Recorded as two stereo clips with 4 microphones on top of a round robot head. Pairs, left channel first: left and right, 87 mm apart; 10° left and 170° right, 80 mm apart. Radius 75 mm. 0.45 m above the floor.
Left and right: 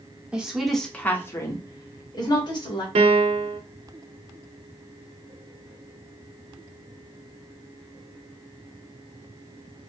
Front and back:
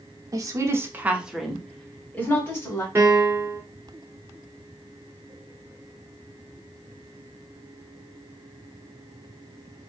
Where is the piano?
100° right, 0.6 m.